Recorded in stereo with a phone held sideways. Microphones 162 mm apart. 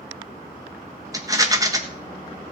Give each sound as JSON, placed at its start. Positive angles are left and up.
{"t": 1.1, "sound": "a rattle", "side_deg": -20, "distance_m": 1.4}